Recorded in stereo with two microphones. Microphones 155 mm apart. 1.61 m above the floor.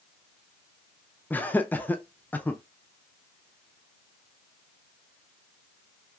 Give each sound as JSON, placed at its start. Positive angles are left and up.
{"t": 1.3, "sound": "laughter", "side_deg": 10, "distance_m": 0.5}